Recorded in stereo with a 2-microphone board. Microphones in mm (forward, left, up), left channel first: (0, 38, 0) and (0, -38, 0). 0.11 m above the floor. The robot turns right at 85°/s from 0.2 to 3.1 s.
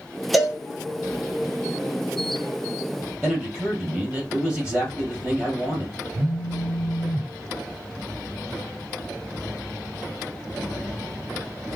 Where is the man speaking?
15° right (ahead or behind), 2.5 m.